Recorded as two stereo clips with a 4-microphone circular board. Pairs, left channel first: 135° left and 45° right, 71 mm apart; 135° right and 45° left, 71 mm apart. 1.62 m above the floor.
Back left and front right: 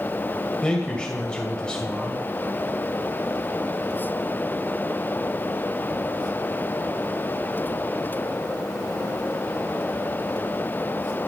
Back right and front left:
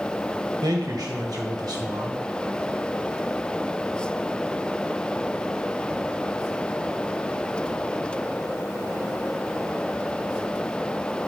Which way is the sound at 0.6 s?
60° left.